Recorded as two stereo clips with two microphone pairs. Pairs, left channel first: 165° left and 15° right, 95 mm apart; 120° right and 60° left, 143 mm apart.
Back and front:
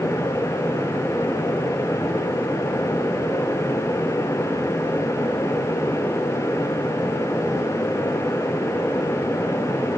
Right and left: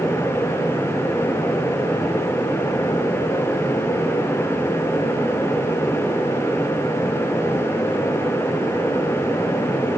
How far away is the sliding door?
No sliding door in this recording.